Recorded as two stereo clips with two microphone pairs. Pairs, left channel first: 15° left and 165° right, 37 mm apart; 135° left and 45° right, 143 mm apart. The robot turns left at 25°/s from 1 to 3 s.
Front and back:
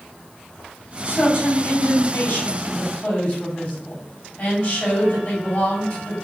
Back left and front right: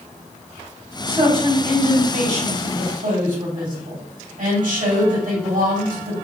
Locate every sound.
1.1 s a man speaking: 10° left, 2.5 m; by 6.2 s 40° right, 2.5 m